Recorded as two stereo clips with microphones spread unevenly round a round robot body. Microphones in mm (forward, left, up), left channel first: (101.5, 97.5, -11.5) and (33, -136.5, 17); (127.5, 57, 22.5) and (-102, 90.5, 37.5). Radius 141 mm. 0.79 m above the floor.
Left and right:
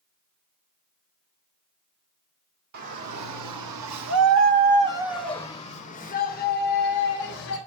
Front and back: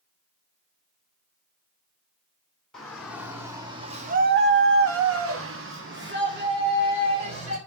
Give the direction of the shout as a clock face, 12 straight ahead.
3 o'clock.